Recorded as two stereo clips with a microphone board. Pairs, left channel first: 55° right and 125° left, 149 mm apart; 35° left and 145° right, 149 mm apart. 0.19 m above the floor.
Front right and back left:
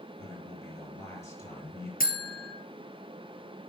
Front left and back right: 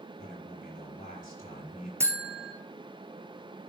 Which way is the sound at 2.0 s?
75° right.